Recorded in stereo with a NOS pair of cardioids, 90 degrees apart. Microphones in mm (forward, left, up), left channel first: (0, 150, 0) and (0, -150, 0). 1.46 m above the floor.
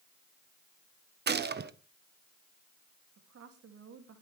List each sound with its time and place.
1.3 s a gunshot: 35° right, 1.2 m
3.2 s a woman speaking: 55° right, 3 m